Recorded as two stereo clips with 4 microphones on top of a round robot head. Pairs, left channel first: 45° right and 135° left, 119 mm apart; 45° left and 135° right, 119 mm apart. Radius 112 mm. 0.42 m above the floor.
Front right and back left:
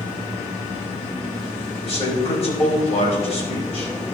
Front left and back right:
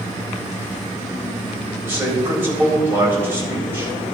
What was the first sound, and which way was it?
A man speaking, 65° right.